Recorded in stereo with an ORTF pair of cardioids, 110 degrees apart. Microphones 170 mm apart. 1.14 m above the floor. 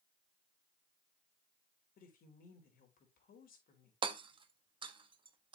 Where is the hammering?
30° right, 1.4 m.